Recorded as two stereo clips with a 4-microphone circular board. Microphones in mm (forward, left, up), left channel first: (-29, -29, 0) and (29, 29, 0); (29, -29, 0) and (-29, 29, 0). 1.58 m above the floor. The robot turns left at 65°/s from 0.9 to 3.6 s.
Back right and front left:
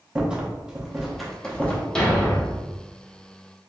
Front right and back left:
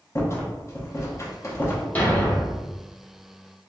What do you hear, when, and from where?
0.1 s a rattle: 25° right, 0.7 m; by 1.9 s 85° right, 0.7 m
1.9 s a thud: 65° right, 0.9 m; by 3.7 s 175° right, 0.9 m